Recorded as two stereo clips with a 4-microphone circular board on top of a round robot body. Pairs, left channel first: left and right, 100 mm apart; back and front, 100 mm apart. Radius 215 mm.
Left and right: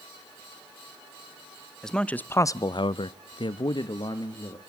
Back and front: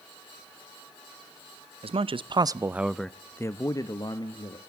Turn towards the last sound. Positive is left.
turn(degrees=140)